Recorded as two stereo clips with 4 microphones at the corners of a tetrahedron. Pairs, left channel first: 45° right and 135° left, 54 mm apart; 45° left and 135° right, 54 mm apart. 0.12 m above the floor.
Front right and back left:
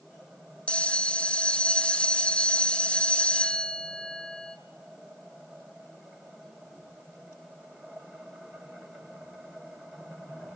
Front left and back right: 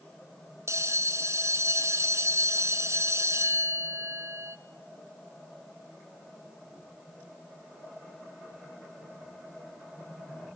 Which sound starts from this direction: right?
A bell, at 0.7 s.